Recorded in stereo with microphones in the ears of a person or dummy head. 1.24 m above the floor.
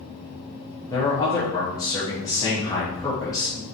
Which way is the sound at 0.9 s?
20° left (ahead or behind).